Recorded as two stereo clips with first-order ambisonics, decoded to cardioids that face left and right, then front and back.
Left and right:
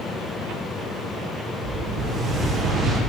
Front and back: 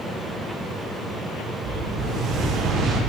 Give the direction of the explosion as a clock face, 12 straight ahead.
5 o'clock.